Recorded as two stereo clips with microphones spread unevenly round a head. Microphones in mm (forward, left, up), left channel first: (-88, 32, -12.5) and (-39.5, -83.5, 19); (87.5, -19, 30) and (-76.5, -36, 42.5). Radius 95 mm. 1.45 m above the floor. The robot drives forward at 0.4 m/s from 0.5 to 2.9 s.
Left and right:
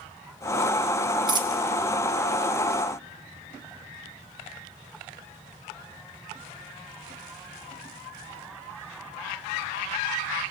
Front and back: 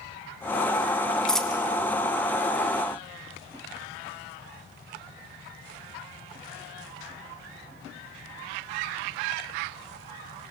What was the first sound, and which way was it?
A dropped coin, 80° right.